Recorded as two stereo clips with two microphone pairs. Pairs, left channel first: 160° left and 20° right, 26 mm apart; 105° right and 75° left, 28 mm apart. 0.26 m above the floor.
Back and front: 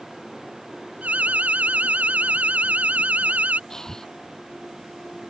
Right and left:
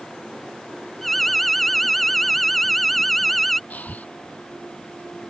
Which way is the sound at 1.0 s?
25° right.